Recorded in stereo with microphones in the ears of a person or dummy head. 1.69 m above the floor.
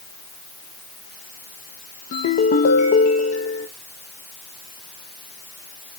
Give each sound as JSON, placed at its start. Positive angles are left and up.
{"t": 2.1, "sound": "a ringtone", "side_deg": 40, "distance_m": 1.1}